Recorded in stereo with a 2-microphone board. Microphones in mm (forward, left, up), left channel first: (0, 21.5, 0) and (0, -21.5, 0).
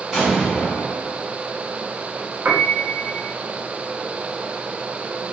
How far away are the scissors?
I don't hear scissors.